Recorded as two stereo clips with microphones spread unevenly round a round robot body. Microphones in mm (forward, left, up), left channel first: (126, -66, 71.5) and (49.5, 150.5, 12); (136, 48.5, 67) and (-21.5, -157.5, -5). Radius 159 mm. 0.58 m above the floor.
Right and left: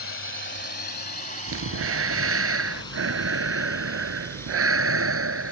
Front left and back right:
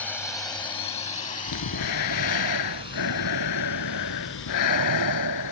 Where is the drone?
35° right; by 5.5 s 15° left.